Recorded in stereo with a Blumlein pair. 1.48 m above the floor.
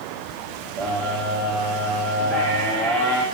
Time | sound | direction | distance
0.8 | a scream | 40° right | 5 m